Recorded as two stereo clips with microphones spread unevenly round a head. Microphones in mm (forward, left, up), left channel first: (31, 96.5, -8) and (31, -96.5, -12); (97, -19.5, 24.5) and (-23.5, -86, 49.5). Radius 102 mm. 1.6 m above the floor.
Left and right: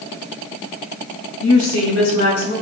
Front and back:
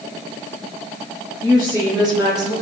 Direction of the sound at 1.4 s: 120° left.